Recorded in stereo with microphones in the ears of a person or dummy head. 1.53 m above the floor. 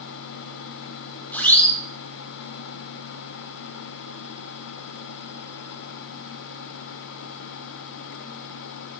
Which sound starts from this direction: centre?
A siren, at 1.3 s.